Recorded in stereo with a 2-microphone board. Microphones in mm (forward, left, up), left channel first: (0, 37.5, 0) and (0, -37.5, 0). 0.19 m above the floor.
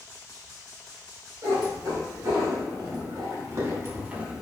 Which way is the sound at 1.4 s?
70° right (ahead or behind).